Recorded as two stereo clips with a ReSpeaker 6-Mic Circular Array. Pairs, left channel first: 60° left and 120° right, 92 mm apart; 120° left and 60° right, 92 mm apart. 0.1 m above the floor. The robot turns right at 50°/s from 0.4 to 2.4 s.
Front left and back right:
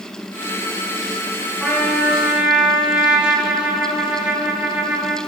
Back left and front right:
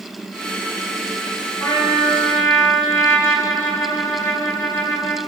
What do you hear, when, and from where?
1.6 s a trumpet: 130° left, 1.0 m; by 5.2 s 170° left, 1.0 m